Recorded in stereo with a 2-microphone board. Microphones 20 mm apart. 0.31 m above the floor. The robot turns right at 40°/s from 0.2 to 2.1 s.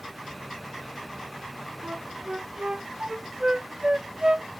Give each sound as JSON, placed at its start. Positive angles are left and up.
{"t": 1.8, "sound": "a flute", "side_deg": -50}